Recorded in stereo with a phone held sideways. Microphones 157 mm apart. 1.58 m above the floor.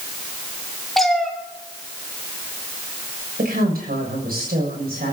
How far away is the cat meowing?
About 1.7 m.